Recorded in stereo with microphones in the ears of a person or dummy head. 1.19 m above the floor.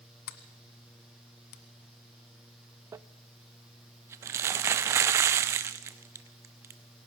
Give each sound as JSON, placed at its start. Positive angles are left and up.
{"t": 0.3, "sound": "a sliding door", "side_deg": 50, "distance_m": 1.6}
{"t": 2.9, "sound": "crumpling", "side_deg": -15, "distance_m": 0.5}